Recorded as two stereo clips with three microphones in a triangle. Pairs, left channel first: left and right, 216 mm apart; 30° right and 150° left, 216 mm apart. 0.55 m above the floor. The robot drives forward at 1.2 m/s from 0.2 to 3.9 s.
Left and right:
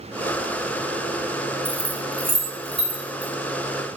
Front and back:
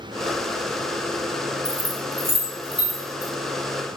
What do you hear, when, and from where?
1.6 s keys jangling: 120° left, 1.3 m; by 3.3 s 155° left, 3 m